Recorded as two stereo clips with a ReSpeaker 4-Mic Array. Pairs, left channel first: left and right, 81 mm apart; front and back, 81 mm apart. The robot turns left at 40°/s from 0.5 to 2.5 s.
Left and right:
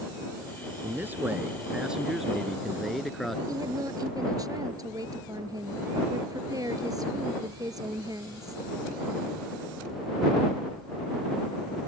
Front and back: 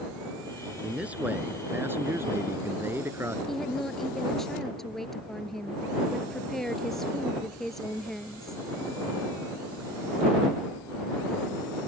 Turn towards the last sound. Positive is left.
turn(degrees=-85)